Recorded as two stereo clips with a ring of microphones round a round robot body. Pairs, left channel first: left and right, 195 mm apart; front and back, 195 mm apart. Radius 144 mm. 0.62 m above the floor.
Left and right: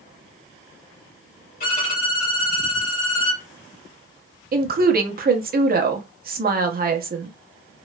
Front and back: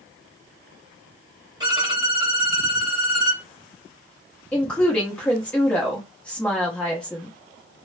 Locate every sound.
1.6 s a violin: 115° left, 1.8 m
4.5 s a woman speaking: 85° right, 0.8 m